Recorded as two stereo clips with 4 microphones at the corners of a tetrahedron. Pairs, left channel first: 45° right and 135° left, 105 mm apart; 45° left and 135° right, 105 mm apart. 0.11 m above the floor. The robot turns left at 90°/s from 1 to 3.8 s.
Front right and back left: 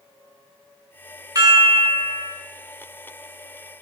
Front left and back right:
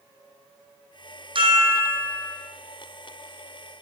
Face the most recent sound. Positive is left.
turn(degrees=-30)